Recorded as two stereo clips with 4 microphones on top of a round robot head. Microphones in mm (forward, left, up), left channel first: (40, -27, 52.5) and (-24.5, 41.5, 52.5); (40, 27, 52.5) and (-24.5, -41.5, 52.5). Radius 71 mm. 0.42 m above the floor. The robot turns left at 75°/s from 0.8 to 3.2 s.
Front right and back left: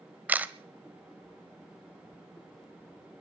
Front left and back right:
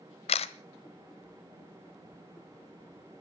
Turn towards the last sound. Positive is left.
turn(degrees=-120)